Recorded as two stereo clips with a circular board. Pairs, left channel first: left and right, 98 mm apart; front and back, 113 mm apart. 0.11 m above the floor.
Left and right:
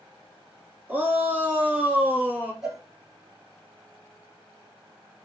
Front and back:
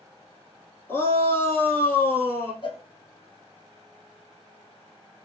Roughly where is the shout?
Ahead right.